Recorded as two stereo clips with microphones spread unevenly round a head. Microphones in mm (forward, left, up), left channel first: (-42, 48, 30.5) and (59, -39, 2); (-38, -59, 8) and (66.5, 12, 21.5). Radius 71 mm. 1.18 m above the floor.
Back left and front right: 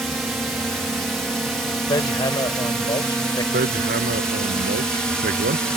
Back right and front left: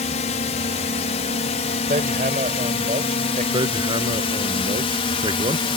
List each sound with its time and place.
0.0 s a drone: 125° right
1.9 s hammering: 80° left
3.5 s hammering: 20° right